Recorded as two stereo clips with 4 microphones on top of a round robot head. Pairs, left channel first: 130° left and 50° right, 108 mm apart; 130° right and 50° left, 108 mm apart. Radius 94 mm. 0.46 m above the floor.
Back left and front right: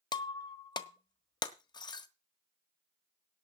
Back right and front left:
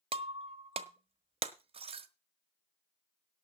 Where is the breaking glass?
80° left, 1.3 m.